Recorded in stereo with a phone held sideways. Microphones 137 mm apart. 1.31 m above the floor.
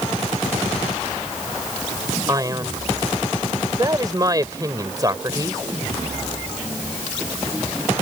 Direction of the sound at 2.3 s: 25° right (ahead or behind).